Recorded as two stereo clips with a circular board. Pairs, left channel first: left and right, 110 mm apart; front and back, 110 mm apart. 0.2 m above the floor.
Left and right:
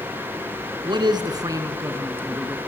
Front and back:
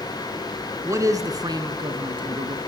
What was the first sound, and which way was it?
A man speaking, 125° right.